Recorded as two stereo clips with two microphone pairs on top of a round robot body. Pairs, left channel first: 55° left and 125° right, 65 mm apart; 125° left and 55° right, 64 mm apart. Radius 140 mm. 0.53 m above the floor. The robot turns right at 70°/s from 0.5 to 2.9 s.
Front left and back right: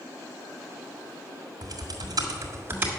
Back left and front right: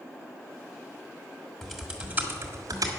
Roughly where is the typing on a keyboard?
Behind right.